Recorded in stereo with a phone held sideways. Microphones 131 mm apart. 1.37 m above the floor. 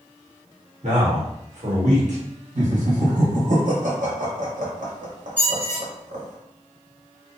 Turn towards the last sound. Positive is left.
turn(degrees=-15)  # may be behind; listen again after turning